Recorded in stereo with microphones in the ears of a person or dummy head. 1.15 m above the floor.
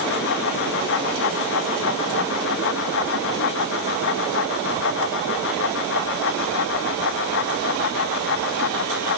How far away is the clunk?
No clunk in this recording.